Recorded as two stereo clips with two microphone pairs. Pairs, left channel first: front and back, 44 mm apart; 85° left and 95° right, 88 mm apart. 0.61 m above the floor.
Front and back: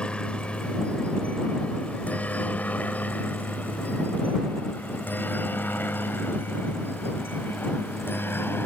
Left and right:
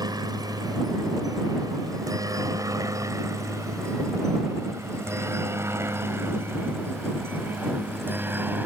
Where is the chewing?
No chewing in this recording.